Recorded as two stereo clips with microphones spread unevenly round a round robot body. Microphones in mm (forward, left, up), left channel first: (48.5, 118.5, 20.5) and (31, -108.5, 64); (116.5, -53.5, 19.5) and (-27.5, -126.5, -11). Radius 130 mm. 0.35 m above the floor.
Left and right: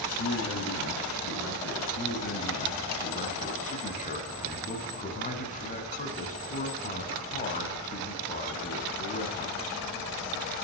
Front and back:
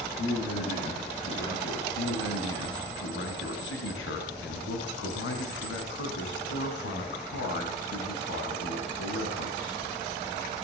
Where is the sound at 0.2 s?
60° left, 5.5 m.